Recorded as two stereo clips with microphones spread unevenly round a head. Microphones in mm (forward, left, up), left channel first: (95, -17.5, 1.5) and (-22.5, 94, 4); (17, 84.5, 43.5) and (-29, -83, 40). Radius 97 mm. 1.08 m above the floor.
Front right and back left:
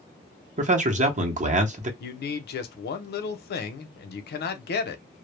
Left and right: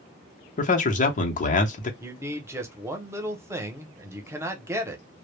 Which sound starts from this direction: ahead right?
A man speaking, at 2.0 s.